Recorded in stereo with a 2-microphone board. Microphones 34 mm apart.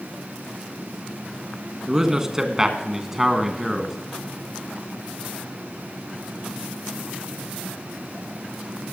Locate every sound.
1.9 s a man speaking: 20° right (ahead or behind), 1.7 m; by 4.0 s 5° right (ahead or behind), 1.5 m